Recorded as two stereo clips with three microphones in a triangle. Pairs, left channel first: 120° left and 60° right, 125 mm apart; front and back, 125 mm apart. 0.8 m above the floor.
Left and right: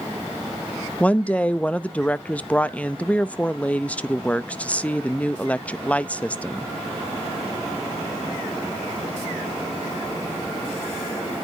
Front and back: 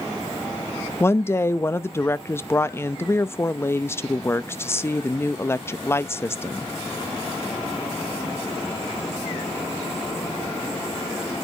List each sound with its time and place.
1.0 s a woman speaking: 50° left, 0.5 m